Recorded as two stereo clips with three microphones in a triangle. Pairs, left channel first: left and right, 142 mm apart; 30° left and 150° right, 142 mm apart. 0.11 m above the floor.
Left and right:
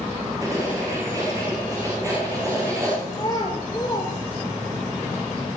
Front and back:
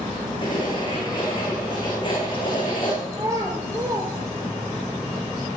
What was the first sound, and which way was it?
Writing, 25° right.